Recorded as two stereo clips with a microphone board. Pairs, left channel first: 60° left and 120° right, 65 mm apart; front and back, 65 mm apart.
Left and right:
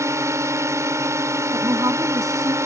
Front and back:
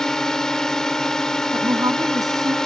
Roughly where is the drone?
Right.